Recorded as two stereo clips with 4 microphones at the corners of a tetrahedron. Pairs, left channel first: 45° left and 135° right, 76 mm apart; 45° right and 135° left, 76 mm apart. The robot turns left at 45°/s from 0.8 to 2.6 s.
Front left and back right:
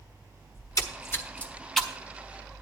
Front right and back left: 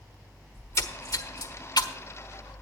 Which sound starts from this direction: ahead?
A splash, at 0.6 s.